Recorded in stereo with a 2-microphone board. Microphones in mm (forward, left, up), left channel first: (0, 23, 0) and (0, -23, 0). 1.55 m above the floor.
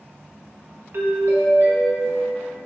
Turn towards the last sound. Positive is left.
turn(degrees=-60)  # may be behind; listen again after turning